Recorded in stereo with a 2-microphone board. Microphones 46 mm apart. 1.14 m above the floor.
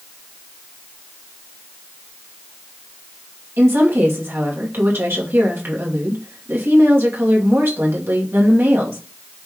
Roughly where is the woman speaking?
Right.